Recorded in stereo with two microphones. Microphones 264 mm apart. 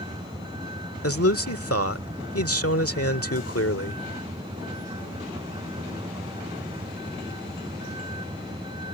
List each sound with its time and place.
0.0 s a vehicle: 15° right (ahead or behind)
1.0 s a man speaking: 60° left (ahead or behind)